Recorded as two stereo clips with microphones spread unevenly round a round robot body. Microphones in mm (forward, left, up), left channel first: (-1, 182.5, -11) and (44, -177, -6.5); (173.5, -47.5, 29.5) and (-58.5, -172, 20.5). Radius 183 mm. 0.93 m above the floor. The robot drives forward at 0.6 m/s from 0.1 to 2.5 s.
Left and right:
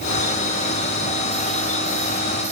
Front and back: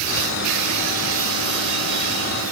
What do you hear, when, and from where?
Only background noise.